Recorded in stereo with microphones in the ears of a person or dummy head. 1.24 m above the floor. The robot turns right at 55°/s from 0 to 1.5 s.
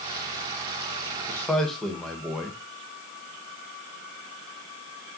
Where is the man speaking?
15° left (ahead or behind), 1.4 m; by 2.6 s centre (ahead or behind), 1.4 m.